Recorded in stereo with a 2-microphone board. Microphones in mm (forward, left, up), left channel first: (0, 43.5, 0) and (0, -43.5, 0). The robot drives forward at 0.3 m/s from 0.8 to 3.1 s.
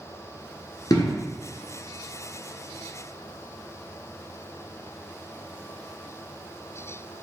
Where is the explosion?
50° left (ahead or behind), 1.6 m.